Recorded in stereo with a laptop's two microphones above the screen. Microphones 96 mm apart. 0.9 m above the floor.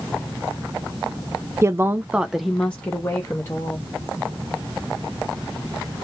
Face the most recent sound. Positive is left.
turn(degrees=30)  # may be behind; listen again after turning